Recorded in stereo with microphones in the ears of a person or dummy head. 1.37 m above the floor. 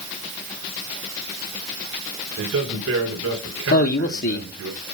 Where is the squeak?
I don't hear a squeak.